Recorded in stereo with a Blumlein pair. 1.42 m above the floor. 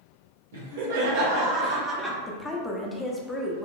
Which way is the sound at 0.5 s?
60° right.